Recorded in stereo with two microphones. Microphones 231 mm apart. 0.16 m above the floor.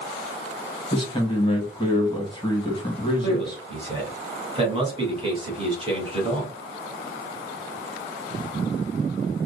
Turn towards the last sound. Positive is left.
turn(degrees=-25)  # may be behind; listen again after turning